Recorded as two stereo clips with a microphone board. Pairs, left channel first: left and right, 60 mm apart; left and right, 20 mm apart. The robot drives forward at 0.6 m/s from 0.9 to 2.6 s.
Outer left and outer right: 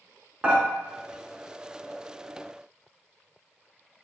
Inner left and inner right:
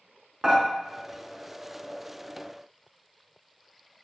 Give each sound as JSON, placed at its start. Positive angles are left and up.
{"t": 0.4, "sound": "dishes clattering", "side_deg": -20, "distance_m": 0.9}